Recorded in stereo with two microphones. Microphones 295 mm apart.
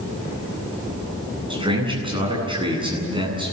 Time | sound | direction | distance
1.5 | a man speaking | 15° right (ahead or behind) | 9 m